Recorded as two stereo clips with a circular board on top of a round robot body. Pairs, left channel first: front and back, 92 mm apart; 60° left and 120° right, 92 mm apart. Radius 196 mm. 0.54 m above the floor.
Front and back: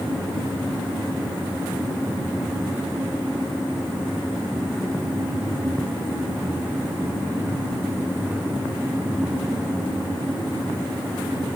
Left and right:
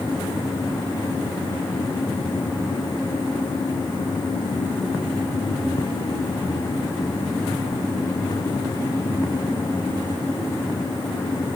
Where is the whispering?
I don't hear whispering.